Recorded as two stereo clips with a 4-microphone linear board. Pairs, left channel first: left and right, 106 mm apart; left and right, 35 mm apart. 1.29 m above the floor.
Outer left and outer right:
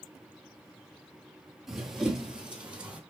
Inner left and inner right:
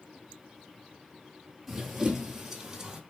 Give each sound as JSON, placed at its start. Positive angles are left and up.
{"t": 1.7, "sound": "running footsteps", "side_deg": -5, "distance_m": 1.4}